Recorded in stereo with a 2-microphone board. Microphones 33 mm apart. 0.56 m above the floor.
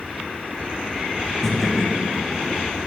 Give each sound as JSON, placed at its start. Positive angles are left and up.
{"t": 1.4, "sound": "laughter", "side_deg": 15, "distance_m": 2.0}